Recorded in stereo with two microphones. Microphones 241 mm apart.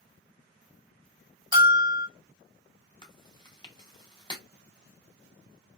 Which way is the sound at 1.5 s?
20° right (ahead or behind).